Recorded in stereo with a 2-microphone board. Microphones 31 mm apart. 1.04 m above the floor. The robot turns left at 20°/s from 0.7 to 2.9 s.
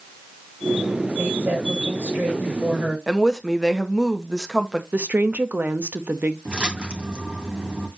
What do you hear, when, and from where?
1.2 s a woman speaking: 100° right, 7 m; by 3.0 s 135° right, 7 m
3.1 s a woman speaking: 10° right (ahead or behind), 1.3 m
4.9 s a woman speaking: 70° right (ahead or behind), 1.0 m
6.5 s a splash: 35° right (ahead or behind), 2.5 m